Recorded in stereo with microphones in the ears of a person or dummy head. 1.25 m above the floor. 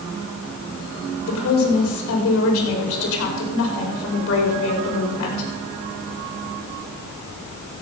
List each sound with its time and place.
1.3 s a woman speaking: 80° left, 4.5 m